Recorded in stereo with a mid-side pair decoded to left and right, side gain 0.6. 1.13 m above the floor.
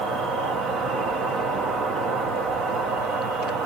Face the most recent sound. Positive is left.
turn(degrees=-65)